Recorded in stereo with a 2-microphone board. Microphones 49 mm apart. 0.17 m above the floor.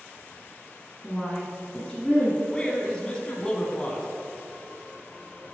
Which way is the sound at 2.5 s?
20° left (ahead or behind).